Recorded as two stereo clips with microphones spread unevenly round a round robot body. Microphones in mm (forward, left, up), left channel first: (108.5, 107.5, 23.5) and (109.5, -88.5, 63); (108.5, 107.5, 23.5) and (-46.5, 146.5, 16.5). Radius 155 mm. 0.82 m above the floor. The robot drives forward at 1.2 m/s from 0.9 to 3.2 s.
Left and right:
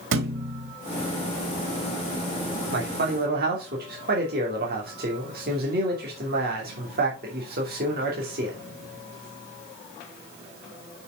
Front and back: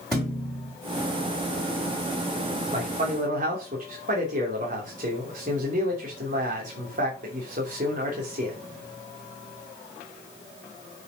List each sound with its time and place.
0.1 s a thud: 100° right, 1.3 m
2.7 s a man speaking: 135° right, 2.5 m; by 8.6 s 145° right, 3 m